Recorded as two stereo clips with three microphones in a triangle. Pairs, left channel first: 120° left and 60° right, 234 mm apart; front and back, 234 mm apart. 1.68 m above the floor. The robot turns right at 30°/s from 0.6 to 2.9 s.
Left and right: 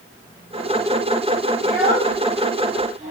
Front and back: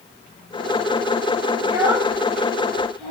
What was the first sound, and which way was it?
A child speaking, 120° right.